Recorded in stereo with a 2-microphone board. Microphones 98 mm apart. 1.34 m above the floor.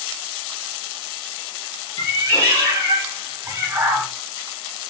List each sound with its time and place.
2.0 s a cat meowing: 20° right (ahead or behind), 2 m